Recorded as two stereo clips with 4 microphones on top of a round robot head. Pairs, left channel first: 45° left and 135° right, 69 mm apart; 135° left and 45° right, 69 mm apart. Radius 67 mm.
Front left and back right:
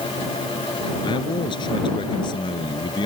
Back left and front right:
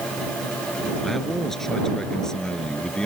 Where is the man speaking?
50° left; by 3.1 s 55° left.